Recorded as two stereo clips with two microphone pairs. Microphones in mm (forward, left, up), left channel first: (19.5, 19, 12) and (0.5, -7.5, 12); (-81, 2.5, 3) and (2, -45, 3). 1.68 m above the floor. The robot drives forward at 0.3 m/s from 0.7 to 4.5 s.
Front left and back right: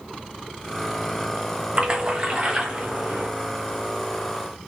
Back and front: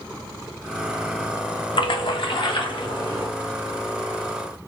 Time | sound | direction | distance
1.8 | a splash | 175° left | 0.6 m